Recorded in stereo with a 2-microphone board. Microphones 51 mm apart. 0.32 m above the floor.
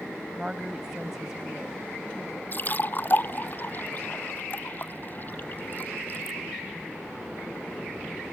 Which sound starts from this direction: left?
A splash, at 2.5 s.